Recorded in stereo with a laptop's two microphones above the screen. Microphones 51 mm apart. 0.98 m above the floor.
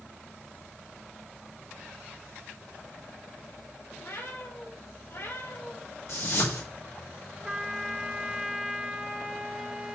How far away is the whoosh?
About 2.5 m.